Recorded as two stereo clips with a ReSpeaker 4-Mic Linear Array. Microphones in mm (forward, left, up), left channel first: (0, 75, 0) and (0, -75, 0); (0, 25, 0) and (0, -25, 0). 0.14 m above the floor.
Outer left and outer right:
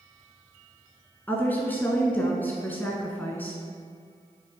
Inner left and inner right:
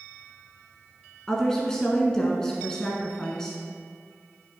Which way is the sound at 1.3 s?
15° left (ahead or behind).